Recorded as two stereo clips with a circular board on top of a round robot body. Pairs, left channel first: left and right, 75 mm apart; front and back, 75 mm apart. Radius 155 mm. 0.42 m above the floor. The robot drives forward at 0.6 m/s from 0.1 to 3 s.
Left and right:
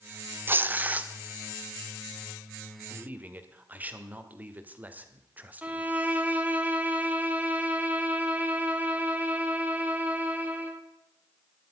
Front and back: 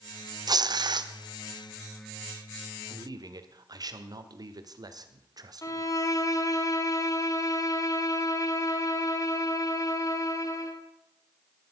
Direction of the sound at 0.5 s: 150° right.